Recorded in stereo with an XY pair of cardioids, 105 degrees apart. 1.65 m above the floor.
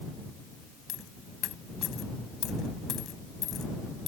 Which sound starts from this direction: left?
A dropped coin, at 0.9 s.